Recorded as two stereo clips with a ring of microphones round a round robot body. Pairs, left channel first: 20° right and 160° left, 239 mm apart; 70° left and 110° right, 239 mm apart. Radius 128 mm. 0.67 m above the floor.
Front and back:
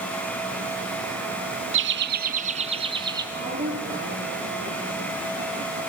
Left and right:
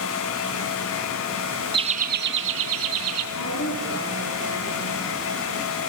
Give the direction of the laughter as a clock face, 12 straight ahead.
6 o'clock.